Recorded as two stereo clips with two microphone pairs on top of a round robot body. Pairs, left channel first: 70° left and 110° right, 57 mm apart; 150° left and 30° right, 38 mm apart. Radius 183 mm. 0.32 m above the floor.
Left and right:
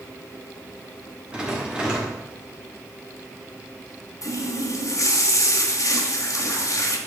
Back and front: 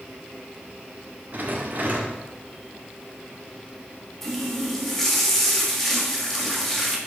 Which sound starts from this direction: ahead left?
A running tap, at 4.2 s.